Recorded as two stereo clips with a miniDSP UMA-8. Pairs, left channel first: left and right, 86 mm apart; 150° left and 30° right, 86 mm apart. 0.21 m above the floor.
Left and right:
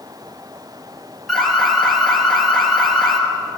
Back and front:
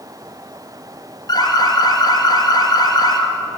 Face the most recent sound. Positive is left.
turn(degrees=180)